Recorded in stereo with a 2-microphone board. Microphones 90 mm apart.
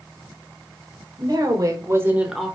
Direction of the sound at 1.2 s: 50° right (ahead or behind).